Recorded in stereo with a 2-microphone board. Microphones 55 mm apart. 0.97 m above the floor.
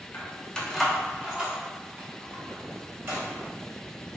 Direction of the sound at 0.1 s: 40° left (ahead or behind).